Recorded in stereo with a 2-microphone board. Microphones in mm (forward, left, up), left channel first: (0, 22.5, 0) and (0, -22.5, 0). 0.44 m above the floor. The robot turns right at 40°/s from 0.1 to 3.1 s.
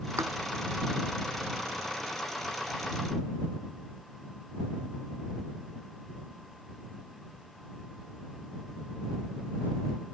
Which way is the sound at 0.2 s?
80° right.